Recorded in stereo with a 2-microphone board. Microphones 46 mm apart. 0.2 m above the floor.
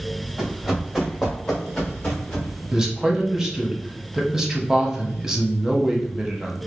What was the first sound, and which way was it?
Running footsteps, 5° right (ahead or behind).